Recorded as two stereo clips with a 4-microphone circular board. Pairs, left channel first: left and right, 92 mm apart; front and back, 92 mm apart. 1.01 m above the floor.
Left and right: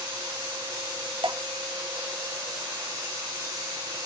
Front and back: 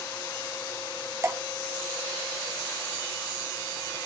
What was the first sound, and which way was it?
Dripping, 120° right.